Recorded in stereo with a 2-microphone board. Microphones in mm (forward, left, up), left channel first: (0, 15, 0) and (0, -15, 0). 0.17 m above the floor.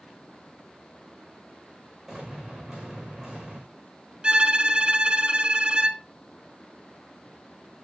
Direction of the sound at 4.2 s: 35° right (ahead or behind).